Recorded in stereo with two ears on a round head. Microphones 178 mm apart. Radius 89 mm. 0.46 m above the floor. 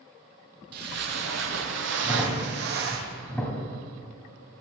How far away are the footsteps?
About 1.0 m.